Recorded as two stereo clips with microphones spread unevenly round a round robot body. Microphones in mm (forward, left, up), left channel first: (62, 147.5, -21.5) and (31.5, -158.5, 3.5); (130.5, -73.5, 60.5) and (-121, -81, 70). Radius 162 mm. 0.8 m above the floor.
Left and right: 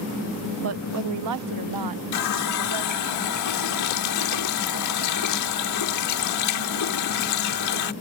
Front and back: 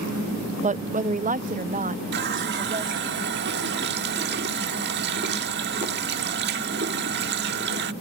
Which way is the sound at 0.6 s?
125° right.